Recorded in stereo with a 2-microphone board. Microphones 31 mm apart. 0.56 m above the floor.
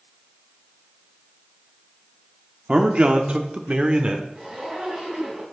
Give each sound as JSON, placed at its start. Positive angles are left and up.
{"t": 2.7, "sound": "a man speaking", "side_deg": -35, "distance_m": 1.0}
{"t": 4.3, "sound": "a zipper", "side_deg": -20, "distance_m": 4.5}